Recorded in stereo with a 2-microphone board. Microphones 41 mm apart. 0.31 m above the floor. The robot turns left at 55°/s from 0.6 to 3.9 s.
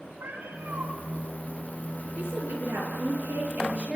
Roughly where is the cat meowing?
Right.